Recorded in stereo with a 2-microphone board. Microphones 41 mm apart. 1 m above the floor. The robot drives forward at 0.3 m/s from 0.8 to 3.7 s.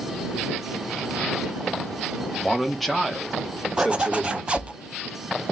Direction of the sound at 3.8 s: 30° right (ahead or behind).